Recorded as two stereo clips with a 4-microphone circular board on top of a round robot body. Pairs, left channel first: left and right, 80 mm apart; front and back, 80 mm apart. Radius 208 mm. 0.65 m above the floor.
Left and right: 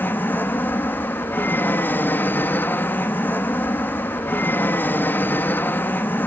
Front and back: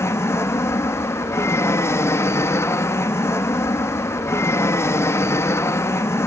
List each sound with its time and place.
0.0 s an aircraft: 35° left